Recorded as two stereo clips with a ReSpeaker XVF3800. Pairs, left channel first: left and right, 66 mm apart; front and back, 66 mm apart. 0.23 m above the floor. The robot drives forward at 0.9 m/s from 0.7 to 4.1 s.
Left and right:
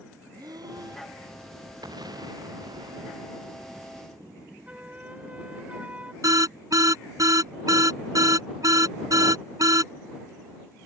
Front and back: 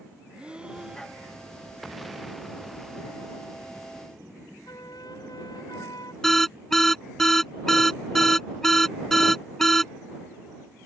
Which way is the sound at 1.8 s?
90° right.